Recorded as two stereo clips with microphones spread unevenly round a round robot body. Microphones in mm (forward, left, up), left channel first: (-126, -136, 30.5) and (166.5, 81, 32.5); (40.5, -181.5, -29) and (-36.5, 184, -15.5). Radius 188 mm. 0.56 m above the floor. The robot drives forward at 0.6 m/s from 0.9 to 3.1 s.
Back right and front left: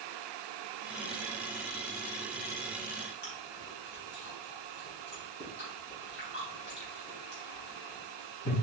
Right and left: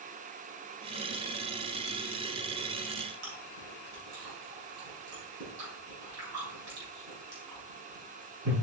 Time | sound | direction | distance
3.2 | chewing | 155° left | 3.5 m